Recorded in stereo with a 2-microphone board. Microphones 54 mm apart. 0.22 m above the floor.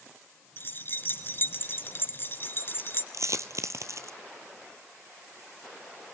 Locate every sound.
0.6 s keys jangling: 45° left (ahead or behind), 1.7 m
3.1 s a dropped coin: 65° right (ahead or behind), 1.2 m